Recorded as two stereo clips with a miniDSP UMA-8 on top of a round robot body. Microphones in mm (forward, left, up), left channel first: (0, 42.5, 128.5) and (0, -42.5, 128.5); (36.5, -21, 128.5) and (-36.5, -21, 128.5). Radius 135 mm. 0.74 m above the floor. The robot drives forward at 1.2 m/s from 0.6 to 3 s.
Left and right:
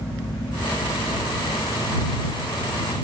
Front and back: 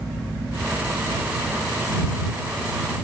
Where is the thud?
I don't hear a thud.